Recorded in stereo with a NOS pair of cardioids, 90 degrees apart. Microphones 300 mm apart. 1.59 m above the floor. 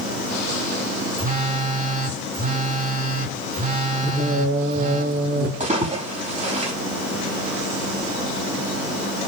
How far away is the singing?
About 5.5 m.